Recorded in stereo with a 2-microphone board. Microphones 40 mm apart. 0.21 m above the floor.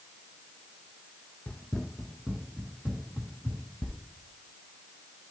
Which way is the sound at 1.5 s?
40° left (ahead or behind).